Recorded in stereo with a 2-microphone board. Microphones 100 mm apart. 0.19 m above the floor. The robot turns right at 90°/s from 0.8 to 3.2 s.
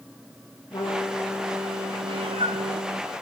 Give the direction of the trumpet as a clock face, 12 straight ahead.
8 o'clock.